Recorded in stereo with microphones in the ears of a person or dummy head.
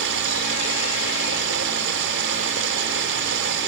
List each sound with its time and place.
0.0 s running water: 70° right (ahead or behind)